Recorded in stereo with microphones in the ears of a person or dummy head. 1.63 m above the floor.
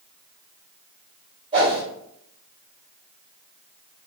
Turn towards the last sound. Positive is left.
turn(degrees=-30)  # may be behind; listen again after turning